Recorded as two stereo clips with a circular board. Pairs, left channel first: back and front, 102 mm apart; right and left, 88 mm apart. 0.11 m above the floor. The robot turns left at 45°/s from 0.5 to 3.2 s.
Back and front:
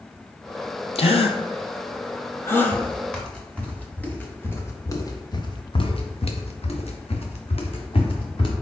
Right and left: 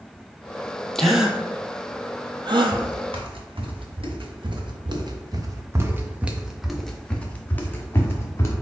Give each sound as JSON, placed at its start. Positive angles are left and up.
{"t": 0.9, "sound": "a gasp", "azimuth_deg": -175, "distance_m": 0.6}
{"t": 2.7, "sound": "footsteps", "azimuth_deg": 115, "distance_m": 2.0}